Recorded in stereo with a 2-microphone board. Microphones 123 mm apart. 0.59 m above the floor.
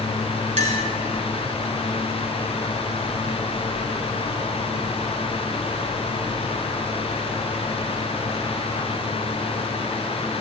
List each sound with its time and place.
0.6 s a clink: 75° right (ahead or behind), 1.9 m